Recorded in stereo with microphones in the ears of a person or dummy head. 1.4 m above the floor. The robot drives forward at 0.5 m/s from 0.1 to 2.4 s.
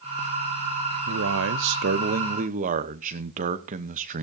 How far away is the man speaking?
About 0.7 m.